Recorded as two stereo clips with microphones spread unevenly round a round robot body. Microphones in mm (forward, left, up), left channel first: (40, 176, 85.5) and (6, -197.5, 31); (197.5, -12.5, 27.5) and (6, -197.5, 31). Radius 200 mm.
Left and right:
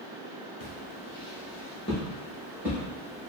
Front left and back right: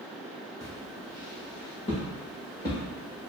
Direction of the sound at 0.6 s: 115° left.